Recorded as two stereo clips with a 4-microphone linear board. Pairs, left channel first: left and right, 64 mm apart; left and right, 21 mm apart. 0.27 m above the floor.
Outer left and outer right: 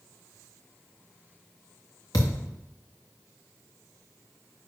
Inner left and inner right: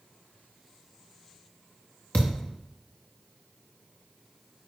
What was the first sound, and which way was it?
A thud, 75° left (ahead or behind).